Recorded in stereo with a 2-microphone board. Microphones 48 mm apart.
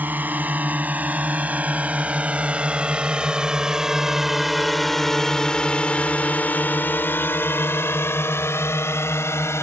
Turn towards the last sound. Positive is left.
turn(degrees=65)  # may be behind; listen again after turning